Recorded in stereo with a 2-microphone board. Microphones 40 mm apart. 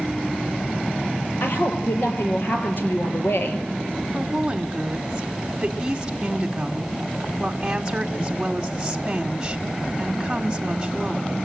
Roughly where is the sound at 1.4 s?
Left.